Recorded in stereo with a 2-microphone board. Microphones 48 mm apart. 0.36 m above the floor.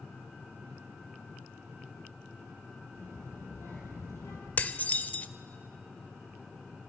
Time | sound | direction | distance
3.0 | a child speaking | 55° left (ahead or behind) | 5 m
4.6 | dishes clattering | 35° left (ahead or behind) | 0.6 m